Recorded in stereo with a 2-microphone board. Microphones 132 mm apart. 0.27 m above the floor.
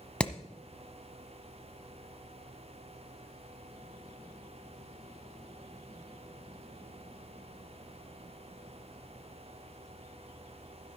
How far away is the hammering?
About 1.0 m.